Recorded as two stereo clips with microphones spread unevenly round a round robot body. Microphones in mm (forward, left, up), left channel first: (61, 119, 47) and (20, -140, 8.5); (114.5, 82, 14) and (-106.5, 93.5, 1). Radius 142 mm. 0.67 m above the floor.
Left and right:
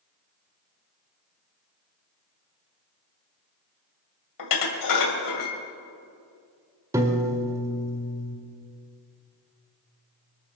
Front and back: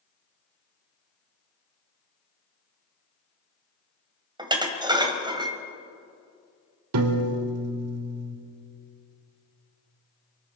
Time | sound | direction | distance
4.4 | dishes clattering | 105° left | 2 m
6.9 | a piano | straight behind | 1.3 m